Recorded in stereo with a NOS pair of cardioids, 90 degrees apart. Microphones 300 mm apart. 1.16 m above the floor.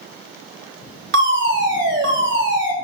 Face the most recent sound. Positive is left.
turn(degrees=-45)